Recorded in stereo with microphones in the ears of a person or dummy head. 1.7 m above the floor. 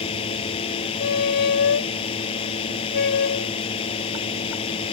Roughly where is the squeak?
Left.